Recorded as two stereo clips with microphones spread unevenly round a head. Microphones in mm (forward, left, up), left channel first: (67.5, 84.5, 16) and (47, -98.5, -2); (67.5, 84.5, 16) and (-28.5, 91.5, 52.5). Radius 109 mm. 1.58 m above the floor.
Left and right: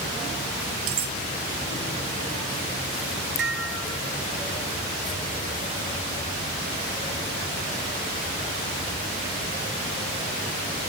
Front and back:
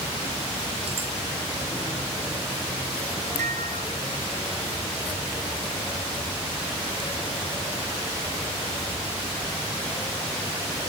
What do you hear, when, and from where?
0.9 s cutlery clinking: 125° right
3.4 s dishes clattering: 140° right